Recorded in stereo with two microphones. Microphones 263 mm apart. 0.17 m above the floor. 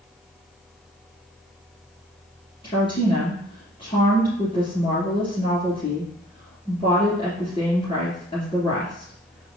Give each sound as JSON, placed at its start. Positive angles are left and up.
{"t": 2.6, "sound": "a woman speaking", "side_deg": 20, "distance_m": 2.5}